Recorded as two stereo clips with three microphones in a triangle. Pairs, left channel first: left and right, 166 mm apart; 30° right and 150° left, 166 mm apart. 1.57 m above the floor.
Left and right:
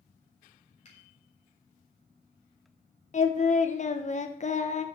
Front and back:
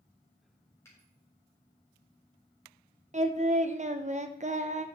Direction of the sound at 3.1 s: 120° left.